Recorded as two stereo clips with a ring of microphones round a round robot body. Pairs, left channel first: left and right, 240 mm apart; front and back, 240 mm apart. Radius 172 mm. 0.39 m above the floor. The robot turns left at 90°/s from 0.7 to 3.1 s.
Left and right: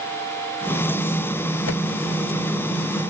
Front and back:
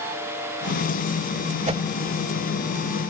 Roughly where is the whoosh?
Behind left.